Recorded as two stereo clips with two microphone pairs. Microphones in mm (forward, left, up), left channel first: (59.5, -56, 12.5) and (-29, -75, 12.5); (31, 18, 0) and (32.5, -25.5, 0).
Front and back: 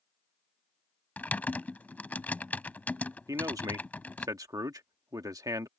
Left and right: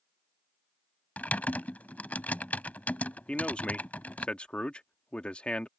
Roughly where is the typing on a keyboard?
Left.